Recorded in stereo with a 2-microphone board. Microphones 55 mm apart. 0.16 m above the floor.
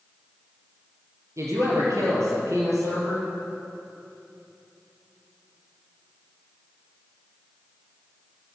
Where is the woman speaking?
70° right (ahead or behind), 3.5 m.